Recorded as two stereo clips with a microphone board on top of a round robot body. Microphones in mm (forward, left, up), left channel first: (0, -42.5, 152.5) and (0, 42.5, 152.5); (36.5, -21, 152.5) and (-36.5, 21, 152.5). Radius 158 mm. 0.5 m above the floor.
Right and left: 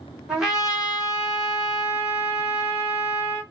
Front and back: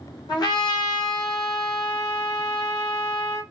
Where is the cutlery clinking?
No cutlery clinking in this recording.